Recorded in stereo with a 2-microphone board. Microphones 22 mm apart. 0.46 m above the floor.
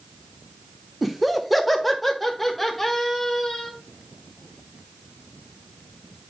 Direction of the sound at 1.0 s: 5° right (ahead or behind).